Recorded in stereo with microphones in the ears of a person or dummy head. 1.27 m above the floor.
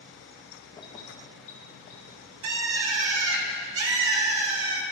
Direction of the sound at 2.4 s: 70° right (ahead or behind).